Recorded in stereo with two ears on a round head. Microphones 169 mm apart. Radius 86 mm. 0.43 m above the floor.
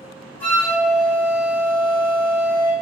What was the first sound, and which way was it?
A flute, 10° left (ahead or behind).